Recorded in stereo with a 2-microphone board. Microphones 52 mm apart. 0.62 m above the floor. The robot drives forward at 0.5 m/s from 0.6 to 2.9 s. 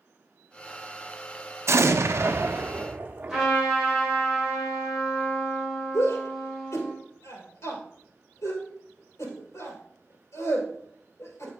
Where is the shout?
70° left (ahead or behind), 2.5 m.